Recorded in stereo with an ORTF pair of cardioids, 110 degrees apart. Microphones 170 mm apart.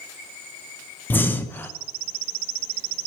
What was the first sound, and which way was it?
Breathing, 10° left.